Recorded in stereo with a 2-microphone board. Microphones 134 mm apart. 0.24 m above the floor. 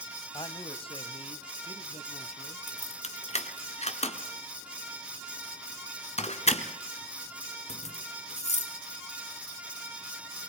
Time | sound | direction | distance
0.3 | a man speaking | 35° left (ahead or behind) | 1.6 m
2.7 | keys jangling | 50° left (ahead or behind) | 2 m